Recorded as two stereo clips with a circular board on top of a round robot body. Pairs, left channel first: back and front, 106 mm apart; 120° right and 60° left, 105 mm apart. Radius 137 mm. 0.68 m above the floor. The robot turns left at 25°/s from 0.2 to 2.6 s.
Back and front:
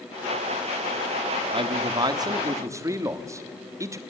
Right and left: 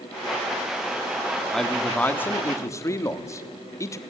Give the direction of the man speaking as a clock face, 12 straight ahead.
1 o'clock.